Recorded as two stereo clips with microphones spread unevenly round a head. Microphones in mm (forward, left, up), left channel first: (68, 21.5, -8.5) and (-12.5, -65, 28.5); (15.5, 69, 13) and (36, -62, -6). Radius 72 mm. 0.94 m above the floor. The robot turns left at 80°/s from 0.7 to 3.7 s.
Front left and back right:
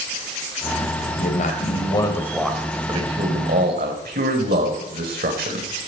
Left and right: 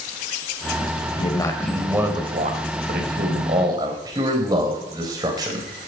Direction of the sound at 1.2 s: 55° left.